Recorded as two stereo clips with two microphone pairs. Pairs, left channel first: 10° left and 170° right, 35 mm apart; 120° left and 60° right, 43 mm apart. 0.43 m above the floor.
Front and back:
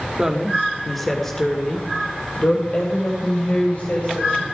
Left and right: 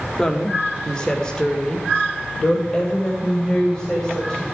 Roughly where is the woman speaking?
Behind left.